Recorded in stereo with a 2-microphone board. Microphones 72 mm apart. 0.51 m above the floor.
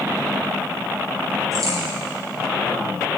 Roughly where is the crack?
Right.